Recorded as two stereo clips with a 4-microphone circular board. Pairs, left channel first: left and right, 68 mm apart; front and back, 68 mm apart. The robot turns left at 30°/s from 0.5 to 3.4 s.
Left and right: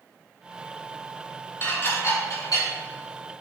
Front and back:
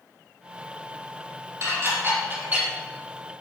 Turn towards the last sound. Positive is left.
turn(degrees=90)